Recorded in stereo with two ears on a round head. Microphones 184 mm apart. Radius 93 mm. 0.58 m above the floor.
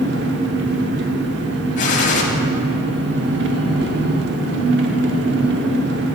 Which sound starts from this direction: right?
An engine running, at 0.0 s.